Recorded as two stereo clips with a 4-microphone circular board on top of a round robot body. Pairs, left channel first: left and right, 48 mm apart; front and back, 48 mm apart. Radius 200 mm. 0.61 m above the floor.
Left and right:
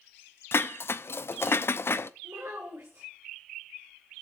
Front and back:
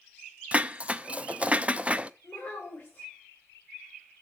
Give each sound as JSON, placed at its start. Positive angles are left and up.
{"t": 0.5, "sound": "dishes clattering", "azimuth_deg": 115, "distance_m": 0.7}
{"t": 2.2, "sound": "a child speaking", "azimuth_deg": -60, "distance_m": 2.5}